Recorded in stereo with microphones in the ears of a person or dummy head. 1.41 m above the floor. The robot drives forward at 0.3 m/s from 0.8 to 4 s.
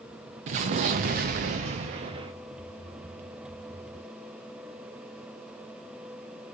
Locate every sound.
0.5 s an explosion: 40° right (ahead or behind), 0.5 m; by 2.3 s 30° right (ahead or behind), 0.6 m